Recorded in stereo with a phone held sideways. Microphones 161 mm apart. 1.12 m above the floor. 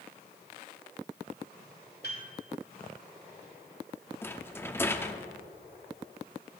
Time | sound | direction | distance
2.0 | a piano | 70° left (ahead or behind) | 2.5 m
4.2 | a rattle | 15° left (ahead or behind) | 0.6 m